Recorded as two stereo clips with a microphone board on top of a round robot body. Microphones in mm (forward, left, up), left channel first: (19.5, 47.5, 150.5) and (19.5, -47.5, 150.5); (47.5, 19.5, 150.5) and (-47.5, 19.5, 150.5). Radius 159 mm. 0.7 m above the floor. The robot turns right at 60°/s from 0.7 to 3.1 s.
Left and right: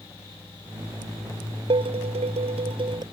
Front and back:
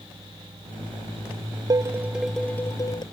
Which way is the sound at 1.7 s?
125° right.